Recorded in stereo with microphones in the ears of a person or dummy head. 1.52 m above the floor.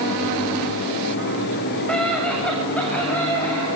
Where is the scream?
Centre (ahead or behind), 7 m; by 3.7 s 5° left (ahead or behind), 9.5 m.